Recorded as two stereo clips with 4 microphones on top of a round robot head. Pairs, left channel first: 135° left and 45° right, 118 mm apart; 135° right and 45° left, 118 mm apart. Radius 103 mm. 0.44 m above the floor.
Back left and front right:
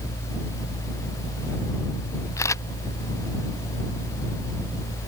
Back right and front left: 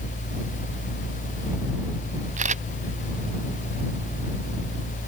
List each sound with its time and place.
2.4 s a camera shutter: 70° left